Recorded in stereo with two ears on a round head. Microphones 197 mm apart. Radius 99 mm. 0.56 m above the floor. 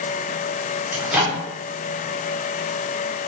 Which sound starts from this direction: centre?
A microwave, at 0.9 s.